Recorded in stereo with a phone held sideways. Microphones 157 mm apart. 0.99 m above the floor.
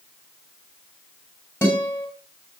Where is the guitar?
15° left (ahead or behind), 8.5 m.